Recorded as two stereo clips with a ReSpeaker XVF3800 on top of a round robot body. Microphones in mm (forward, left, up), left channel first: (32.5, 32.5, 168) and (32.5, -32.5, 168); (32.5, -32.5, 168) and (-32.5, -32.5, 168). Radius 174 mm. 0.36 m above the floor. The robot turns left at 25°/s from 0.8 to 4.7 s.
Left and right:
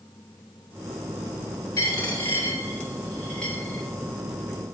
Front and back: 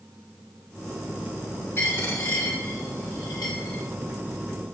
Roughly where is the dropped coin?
Ahead left.